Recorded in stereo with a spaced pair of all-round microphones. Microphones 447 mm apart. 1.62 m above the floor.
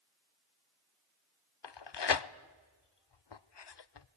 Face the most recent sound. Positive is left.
turn(degrees=65)  # may be behind; listen again after turning